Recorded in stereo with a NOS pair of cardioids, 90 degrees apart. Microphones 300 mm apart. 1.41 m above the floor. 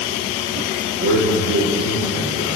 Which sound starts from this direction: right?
A man speaking, at 1.0 s.